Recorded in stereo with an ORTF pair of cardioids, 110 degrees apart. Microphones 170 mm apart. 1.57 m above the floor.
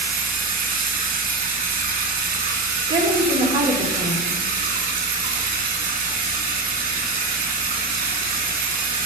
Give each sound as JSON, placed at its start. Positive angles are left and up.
{"t": 0.0, "sound": "running water", "azimuth_deg": -55, "distance_m": 1.9}
{"t": 2.9, "sound": "a woman speaking", "azimuth_deg": -30, "distance_m": 2.5}